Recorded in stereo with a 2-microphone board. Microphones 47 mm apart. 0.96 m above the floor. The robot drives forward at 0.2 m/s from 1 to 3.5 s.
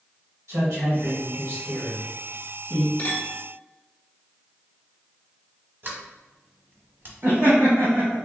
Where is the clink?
45° left (ahead or behind), 1.2 m.